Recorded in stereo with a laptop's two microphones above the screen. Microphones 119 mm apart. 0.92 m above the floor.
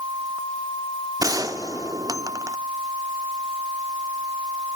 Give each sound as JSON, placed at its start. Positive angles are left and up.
{"t": 1.2, "sound": "a gunshot", "side_deg": -30, "distance_m": 1.0}